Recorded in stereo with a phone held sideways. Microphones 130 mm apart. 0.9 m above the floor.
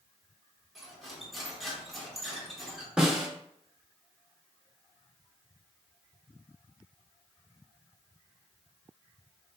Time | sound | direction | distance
0.8 | cutlery clinking | centre (ahead or behind) | 1.2 m
3.0 | a snare drum | 5° right (ahead or behind) | 0.9 m